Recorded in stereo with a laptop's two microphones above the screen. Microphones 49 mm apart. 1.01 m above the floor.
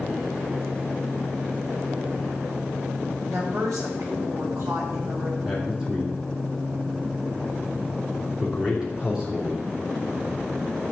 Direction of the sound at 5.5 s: 15° right (ahead or behind).